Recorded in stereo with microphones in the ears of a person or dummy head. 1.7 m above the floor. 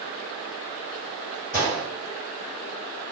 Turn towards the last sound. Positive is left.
turn(degrees=-15)  # may be behind; listen again after turning